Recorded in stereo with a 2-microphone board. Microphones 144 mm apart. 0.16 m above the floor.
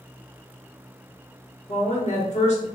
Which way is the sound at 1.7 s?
55° left (ahead or behind).